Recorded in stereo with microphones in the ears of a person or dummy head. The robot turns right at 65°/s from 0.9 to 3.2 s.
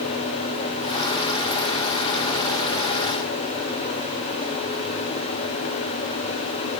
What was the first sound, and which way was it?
Only background noise.